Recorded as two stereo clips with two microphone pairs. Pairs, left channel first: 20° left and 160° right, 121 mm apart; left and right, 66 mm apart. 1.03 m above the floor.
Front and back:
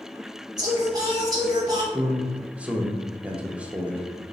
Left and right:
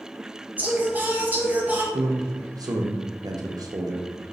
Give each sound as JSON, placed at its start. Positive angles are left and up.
{"t": 0.6, "sound": "singing", "azimuth_deg": -135, "distance_m": 0.8}
{"t": 1.9, "sound": "a man speaking", "azimuth_deg": -80, "distance_m": 0.6}